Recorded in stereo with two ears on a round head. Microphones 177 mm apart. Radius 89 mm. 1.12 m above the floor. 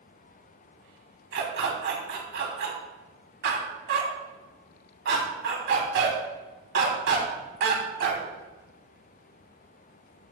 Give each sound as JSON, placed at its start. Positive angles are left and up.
{"t": 1.3, "sound": "a dog barking", "side_deg": -65, "distance_m": 3.5}